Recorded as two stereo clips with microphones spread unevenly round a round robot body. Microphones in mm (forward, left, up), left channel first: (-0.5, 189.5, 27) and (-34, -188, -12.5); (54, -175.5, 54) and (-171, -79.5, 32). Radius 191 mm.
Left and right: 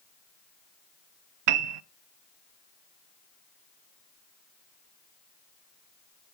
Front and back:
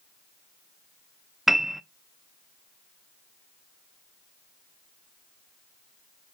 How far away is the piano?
About 0.6 m.